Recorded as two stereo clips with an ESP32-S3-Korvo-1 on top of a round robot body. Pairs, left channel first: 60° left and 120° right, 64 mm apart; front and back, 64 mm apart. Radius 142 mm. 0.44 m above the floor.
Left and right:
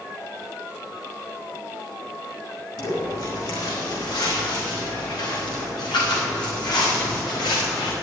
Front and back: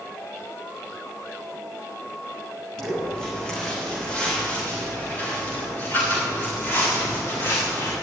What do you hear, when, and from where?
2.8 s footsteps: 80° left, 5.5 m; by 7.9 s 50° left, 6 m